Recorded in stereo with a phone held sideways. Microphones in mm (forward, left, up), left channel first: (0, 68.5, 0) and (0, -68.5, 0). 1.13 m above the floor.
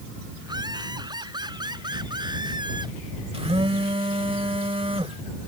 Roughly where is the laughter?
Right.